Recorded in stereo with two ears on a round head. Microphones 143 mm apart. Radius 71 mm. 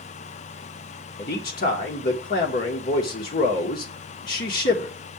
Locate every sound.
1.2 s a man speaking: 60° left (ahead or behind), 1.3 m